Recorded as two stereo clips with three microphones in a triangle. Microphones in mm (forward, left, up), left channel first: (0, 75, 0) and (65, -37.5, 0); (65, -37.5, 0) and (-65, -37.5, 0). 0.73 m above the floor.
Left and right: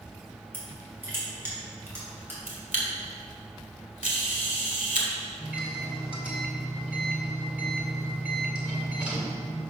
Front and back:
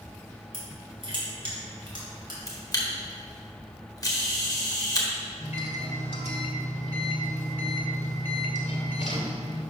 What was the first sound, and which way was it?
Crushing, 135° right.